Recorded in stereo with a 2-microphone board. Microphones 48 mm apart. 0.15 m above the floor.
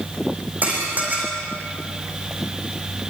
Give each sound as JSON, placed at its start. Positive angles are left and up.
{"t": 0.6, "sound": "dishes clattering", "side_deg": -35, "distance_m": 6.0}